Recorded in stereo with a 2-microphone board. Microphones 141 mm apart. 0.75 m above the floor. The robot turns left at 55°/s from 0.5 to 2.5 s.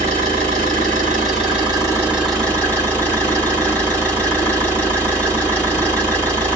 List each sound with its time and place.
0.0 s an engine running: 80° right, 2.5 m; by 6.6 s 170° left, 2.5 m